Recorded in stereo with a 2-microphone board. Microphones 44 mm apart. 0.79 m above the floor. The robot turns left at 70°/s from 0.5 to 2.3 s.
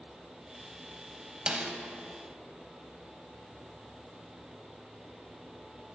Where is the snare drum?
20° right (ahead or behind), 0.6 m; by 1.7 s 15° right (ahead or behind), 0.6 m.